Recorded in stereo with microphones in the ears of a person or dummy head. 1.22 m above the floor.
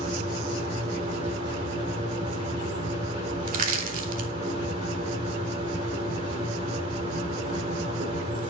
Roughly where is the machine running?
Right.